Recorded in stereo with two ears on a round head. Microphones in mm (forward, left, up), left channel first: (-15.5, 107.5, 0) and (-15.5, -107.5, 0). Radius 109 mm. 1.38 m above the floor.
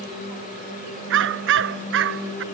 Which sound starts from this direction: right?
A dog barking, at 1.1 s.